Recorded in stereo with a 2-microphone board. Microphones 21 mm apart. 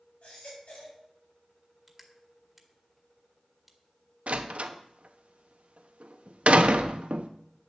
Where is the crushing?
Centre (ahead or behind), 1.9 m.